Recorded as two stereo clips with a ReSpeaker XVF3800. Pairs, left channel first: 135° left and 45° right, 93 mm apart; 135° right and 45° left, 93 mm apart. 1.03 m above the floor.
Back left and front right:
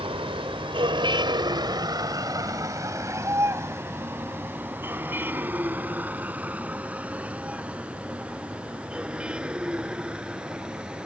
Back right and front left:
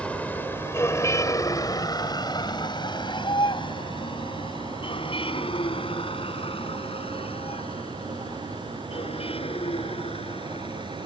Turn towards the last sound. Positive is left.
turn(degrees=-130)